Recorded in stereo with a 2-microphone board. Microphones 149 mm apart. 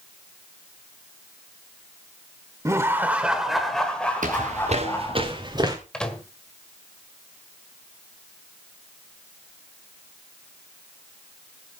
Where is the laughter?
20° right (ahead or behind), 1.2 m; by 5.2 s 20° left (ahead or behind), 2 m.